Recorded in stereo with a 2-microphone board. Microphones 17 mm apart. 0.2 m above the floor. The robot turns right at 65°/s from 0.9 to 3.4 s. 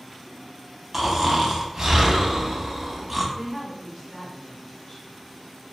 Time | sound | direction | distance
0.9 | snoring | 160° right | 0.5 m
3.4 | a woman speaking | 20° left (ahead or behind) | 1.7 m